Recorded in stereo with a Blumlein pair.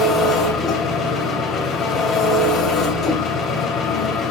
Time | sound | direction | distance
0.0 | an engine running | 25° left | 3.5 m